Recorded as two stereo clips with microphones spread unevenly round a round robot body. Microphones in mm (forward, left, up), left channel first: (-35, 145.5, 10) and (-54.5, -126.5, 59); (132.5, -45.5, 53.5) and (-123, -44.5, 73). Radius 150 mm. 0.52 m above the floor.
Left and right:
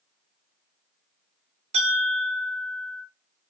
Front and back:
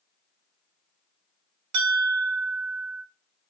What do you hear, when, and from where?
1.7 s a bell: 165° right, 0.8 m